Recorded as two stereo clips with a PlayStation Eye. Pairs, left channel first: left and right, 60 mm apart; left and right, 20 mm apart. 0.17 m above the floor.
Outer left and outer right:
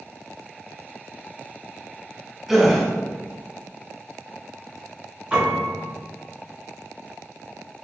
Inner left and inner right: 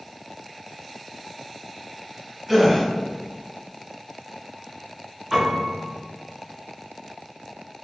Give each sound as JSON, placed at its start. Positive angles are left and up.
{"t": 2.5, "sound": "a gasp", "side_deg": -5, "distance_m": 0.8}
{"t": 5.3, "sound": "a piano", "side_deg": -15, "distance_m": 1.8}